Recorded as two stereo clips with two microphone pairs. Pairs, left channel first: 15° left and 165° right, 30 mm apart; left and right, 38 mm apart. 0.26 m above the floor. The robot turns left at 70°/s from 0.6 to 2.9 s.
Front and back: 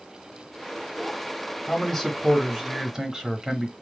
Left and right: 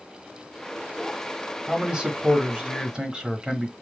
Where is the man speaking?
30° right, 1.0 m; by 3.7 s 115° right, 1.0 m.